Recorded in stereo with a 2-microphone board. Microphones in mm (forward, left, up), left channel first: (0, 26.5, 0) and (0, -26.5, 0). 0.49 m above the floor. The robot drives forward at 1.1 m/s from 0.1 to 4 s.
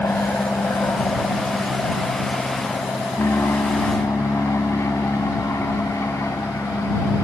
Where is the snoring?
I don't hear snoring.